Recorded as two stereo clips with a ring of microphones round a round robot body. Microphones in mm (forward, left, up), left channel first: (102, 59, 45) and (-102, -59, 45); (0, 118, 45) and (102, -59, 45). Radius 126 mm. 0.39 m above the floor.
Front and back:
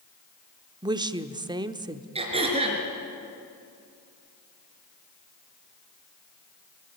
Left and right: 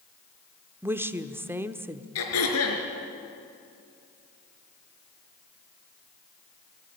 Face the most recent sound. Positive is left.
turn(degrees=140)